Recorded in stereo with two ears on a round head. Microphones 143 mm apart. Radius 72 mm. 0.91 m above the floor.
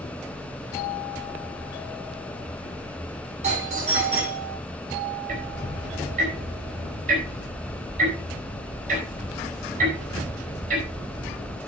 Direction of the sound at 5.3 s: 55° right (ahead or behind).